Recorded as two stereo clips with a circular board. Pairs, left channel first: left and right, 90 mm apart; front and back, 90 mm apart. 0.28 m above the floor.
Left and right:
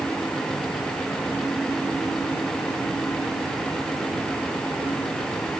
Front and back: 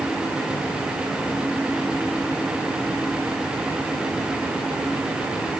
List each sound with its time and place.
Only background noise.